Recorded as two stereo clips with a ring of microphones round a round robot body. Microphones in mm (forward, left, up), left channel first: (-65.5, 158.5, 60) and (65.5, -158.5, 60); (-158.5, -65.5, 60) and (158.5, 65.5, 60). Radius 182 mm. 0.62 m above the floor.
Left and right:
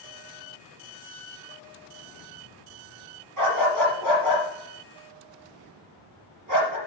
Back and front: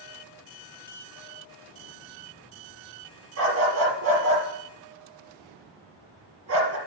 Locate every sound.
3.4 s a dog barking: 25° right, 4 m